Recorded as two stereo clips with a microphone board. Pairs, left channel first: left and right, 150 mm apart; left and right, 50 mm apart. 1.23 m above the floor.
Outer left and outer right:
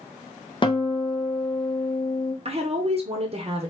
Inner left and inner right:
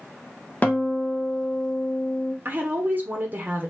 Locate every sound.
0.6 s a guitar: 35° left (ahead or behind), 0.7 m
2.5 s a woman speaking: 45° right (ahead or behind), 0.7 m